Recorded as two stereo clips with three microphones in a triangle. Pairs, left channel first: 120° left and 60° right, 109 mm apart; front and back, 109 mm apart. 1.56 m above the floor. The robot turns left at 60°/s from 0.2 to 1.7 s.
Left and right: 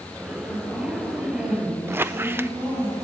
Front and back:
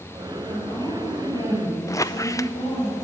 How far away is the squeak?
About 0.6 m.